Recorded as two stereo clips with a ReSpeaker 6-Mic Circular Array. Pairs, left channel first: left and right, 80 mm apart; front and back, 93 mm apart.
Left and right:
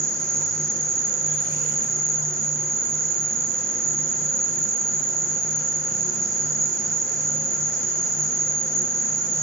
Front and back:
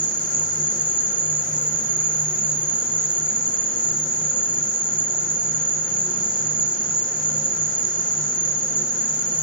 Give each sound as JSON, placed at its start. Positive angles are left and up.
{"t": 0.0, "sound": "an insect", "azimuth_deg": -35, "distance_m": 0.7}